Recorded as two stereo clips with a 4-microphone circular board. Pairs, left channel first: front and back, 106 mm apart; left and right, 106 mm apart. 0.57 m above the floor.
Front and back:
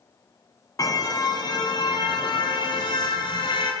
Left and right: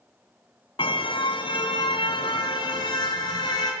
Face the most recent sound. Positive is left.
turn(degrees=40)